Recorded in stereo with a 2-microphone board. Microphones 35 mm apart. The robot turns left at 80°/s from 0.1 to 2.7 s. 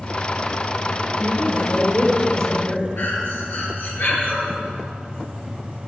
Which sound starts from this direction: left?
Breathing, at 3.0 s.